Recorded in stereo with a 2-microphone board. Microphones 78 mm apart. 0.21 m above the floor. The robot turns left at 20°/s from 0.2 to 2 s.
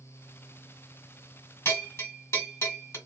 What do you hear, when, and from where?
1.6 s a bell: 30° left (ahead or behind), 1.8 m